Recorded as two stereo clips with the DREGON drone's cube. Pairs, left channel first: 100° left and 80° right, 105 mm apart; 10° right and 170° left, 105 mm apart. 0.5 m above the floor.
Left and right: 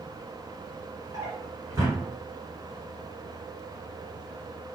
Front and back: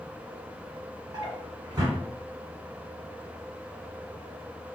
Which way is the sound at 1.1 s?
135° right.